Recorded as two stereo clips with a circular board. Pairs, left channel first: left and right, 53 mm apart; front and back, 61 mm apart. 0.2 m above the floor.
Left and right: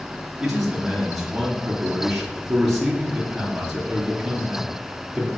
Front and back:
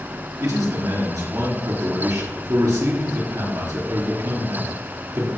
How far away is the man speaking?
About 3.5 m.